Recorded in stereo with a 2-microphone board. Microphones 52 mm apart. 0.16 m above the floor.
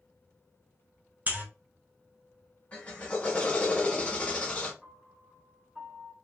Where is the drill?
25° left (ahead or behind), 0.9 m.